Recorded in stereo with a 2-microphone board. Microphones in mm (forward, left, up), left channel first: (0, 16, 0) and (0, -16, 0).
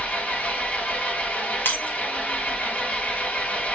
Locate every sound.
0.0 s an engine running: 40° left (ahead or behind), 1.5 m
1.6 s breaking glass: 70° left (ahead or behind), 1.5 m